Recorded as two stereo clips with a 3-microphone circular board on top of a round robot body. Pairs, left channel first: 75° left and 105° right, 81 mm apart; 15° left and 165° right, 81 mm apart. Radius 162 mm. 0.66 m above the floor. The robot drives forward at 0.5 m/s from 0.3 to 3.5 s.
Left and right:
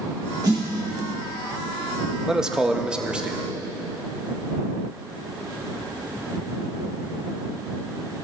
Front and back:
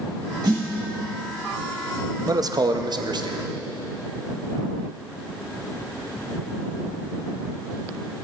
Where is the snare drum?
135° right, 3 m.